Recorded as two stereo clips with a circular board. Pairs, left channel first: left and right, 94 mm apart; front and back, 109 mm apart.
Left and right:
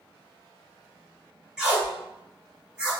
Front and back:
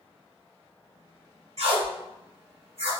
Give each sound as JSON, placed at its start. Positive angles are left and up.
{"t": 1.6, "sound": "tape being pulled", "azimuth_deg": -170, "distance_m": 1.3}